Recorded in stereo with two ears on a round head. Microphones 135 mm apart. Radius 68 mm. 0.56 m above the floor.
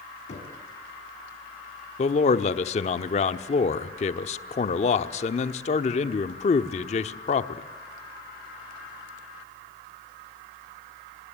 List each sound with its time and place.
0.3 s knocking: 50° left (ahead or behind), 3.5 m
2.0 s a man speaking: 45° left (ahead or behind), 1.0 m